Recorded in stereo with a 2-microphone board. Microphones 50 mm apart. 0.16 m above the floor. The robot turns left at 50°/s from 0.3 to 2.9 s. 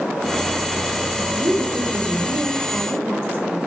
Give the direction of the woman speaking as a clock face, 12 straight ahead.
1 o'clock.